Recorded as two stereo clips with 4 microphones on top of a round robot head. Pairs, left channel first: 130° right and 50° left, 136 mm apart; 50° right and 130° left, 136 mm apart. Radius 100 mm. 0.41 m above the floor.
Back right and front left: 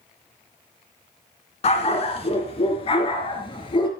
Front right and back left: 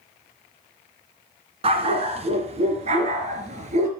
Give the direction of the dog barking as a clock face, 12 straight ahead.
6 o'clock.